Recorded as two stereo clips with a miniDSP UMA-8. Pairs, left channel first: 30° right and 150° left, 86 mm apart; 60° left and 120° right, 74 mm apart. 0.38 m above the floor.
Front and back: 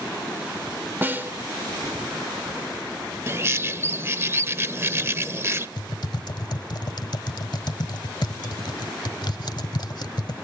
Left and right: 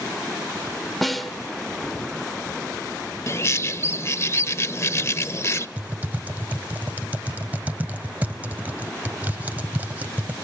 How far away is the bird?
About 0.7 m.